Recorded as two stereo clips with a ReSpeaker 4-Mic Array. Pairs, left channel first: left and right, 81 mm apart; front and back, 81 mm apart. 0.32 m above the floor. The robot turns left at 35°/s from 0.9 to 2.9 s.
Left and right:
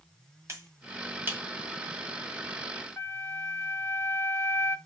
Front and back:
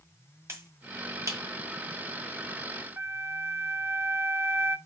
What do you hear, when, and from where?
0.5 s a finger snap: 135° right, 1.5 m; by 1.4 s 150° right, 1.5 m
3.0 s a flute: 140° left, 1.3 m